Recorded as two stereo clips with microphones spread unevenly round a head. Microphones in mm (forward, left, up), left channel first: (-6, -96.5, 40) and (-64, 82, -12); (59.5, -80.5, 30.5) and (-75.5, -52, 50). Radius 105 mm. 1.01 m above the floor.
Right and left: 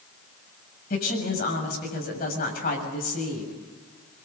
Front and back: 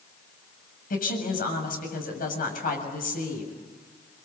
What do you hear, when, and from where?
0.9 s a woman speaking: 20° right, 7 m